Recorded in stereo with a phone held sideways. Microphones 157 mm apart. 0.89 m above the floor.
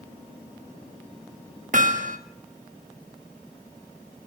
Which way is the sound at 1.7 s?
55° right (ahead or behind).